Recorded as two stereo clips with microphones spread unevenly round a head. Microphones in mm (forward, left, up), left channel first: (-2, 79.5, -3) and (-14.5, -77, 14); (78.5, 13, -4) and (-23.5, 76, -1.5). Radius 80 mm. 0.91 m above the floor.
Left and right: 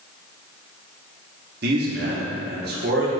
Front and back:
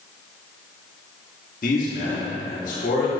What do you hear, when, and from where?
1.6 s a man speaking: 65° right, 1.9 m